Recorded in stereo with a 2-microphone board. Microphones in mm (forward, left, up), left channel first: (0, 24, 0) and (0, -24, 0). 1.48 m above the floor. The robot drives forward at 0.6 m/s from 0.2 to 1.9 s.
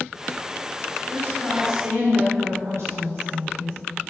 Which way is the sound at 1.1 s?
70° right (ahead or behind).